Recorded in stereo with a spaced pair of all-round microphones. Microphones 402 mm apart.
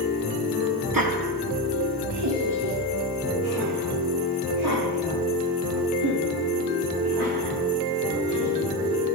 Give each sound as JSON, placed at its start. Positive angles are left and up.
{"t": 0.9, "sound": "laughter", "side_deg": -55, "distance_m": 1.4}